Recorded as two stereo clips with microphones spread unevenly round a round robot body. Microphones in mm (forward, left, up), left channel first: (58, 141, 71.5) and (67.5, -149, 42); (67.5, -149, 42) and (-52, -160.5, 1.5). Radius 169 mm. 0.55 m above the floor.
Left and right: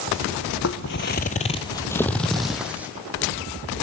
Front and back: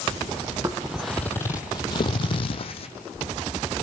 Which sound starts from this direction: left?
Footsteps, at 0.6 s.